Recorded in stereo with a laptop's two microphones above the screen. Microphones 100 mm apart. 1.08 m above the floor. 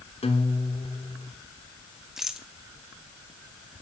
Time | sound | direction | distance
0.2 | a guitar | 80° left | 3.5 m
2.2 | a rattle | 5° right (ahead or behind) | 2.5 m